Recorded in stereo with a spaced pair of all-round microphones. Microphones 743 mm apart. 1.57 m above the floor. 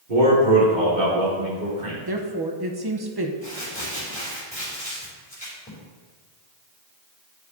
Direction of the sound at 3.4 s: 10° left (ahead or behind).